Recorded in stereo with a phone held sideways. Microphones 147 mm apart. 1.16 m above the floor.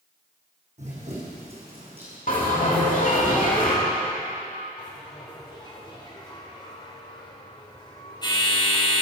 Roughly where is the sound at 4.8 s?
Left.